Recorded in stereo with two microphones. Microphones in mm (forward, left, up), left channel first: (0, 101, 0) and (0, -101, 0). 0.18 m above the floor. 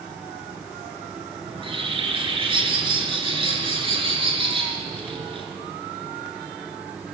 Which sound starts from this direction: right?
A bird, at 1.5 s.